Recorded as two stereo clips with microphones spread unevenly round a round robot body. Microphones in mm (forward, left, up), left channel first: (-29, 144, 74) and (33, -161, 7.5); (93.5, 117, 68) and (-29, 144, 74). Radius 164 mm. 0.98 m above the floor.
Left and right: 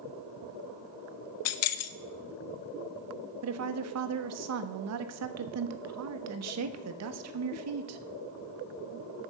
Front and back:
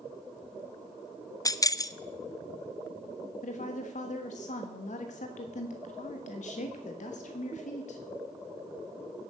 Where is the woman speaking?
40° right, 1.1 m.